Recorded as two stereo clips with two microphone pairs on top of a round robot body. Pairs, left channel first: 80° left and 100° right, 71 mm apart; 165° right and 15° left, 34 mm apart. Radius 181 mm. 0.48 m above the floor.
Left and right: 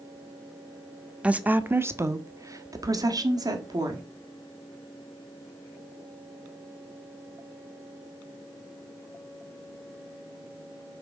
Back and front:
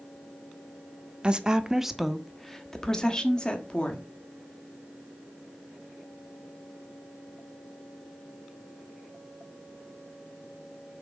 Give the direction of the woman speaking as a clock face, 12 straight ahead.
1 o'clock.